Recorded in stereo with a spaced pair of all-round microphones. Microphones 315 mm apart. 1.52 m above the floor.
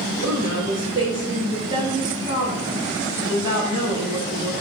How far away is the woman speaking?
About 5 m.